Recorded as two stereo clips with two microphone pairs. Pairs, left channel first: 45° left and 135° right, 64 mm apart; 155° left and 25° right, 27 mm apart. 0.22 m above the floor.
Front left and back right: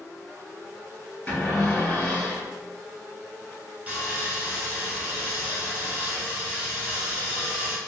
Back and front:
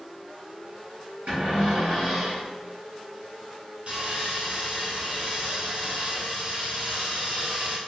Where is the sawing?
70° right, 1.3 m.